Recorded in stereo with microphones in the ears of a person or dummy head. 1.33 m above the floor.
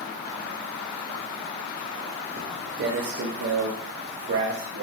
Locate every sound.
2.4 s footsteps: 25° right (ahead or behind), 1.8 m; by 4.8 s 55° right (ahead or behind), 4 m